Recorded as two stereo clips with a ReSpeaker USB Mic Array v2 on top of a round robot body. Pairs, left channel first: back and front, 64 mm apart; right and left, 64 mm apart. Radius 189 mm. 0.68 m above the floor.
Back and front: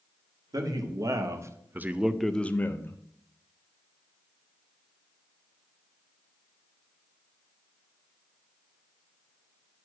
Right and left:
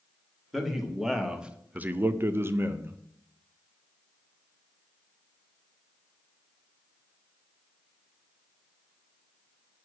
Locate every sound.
0.5 s a man speaking: straight ahead, 1.4 m; by 3.0 s 140° left, 1.0 m